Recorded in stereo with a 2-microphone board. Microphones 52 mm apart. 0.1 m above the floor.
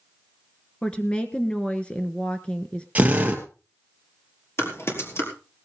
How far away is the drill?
About 2.5 m.